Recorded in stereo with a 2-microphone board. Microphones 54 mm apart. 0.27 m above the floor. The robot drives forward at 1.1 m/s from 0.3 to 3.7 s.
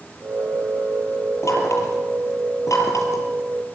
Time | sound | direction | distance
1.4 | knocking | 65° left (ahead or behind) | 6.5 m